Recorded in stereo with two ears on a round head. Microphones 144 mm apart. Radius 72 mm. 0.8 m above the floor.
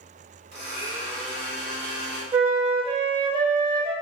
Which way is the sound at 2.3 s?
30° right (ahead or behind).